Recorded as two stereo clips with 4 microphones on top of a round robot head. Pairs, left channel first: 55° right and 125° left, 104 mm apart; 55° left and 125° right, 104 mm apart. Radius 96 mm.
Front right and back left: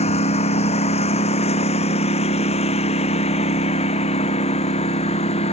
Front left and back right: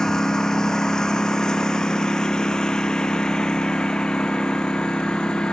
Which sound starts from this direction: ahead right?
A lawn mower, at 0.0 s.